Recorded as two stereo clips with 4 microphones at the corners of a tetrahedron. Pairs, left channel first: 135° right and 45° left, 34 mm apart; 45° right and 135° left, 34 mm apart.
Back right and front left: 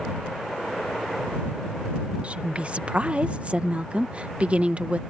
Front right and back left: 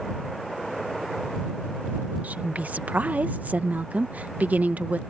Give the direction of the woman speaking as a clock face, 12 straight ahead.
9 o'clock.